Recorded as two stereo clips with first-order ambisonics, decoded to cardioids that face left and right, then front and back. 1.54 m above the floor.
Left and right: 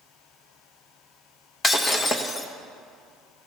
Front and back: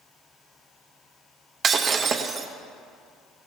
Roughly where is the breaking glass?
Behind left.